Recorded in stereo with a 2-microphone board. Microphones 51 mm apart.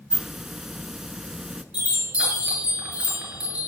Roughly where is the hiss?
Centre.